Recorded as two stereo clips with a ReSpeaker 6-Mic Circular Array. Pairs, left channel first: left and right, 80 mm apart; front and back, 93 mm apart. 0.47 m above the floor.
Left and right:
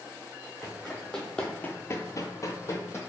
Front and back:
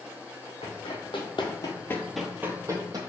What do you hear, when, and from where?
0.6 s running footsteps: straight ahead, 1.5 m; by 3.0 s 140° left, 1.1 m